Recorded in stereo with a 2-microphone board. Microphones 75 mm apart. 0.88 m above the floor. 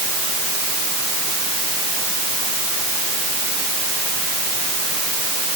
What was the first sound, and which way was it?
Only background noise.